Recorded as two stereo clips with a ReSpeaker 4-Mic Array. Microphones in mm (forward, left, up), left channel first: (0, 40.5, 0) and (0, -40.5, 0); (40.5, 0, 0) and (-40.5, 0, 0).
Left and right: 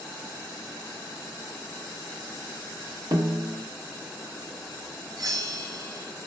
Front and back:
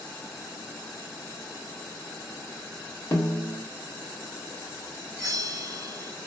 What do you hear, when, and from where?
3.1 s a snare drum: 55° right, 0.8 m
5.2 s a bell: 130° right, 1.2 m